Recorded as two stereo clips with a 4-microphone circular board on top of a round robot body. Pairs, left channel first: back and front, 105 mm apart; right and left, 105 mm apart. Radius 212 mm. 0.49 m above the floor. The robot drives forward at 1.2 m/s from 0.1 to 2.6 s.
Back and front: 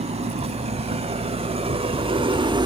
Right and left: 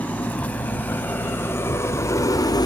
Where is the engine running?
15° right; by 2.6 s 40° right.